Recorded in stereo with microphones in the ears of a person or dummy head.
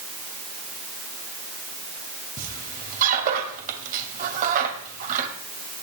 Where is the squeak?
50° right (ahead or behind), 2.5 m.